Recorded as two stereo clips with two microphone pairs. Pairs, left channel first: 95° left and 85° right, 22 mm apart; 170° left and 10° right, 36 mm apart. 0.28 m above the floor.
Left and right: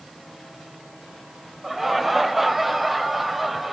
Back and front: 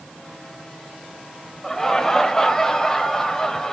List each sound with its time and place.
1.6 s laughter: 145° right, 0.9 m